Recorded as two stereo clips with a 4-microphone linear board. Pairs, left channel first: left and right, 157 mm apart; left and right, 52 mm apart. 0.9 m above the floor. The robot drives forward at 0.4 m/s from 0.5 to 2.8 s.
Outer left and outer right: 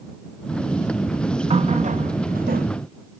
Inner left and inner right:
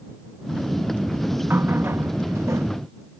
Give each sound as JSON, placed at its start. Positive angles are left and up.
{"t": 1.5, "sound": "a running tap", "side_deg": -45}